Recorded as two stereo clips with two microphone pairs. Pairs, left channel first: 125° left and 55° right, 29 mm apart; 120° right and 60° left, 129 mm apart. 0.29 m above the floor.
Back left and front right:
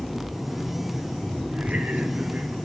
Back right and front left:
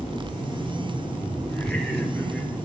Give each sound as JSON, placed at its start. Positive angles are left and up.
{"t": 1.5, "sound": "laughter", "azimuth_deg": -40, "distance_m": 4.5}